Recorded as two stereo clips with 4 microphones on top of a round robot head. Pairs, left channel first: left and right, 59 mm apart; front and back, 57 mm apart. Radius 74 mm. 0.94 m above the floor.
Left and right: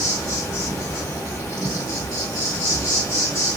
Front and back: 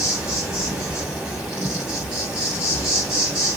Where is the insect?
100° left, 1.9 m.